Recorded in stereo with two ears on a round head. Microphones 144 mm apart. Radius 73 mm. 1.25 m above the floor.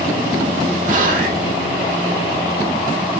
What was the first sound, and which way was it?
Whispering, 55° right (ahead or behind).